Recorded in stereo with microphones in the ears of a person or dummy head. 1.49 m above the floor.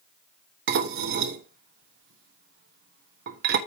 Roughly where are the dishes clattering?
Right.